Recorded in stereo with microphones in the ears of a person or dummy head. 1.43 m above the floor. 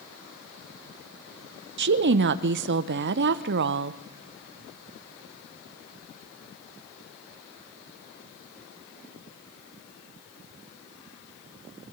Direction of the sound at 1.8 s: 60° right (ahead or behind).